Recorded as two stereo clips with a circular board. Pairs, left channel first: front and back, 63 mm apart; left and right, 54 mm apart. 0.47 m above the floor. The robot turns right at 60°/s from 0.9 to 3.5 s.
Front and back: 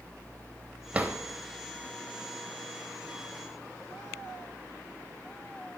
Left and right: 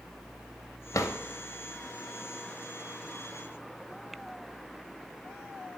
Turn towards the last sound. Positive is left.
turn(degrees=-95)